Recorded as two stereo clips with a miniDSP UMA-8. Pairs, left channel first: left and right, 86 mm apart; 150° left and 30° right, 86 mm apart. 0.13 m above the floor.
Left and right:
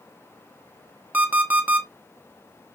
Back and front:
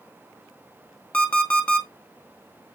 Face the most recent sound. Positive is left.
turn(degrees=-145)